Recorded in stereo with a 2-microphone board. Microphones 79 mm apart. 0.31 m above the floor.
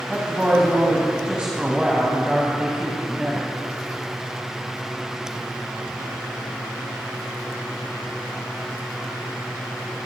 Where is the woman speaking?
15° right (ahead or behind), 1.8 m.